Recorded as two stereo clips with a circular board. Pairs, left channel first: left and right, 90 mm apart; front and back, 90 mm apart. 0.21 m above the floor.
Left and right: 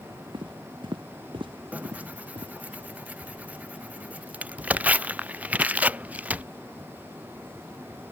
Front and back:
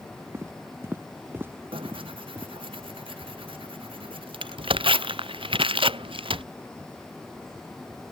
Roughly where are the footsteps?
Behind right.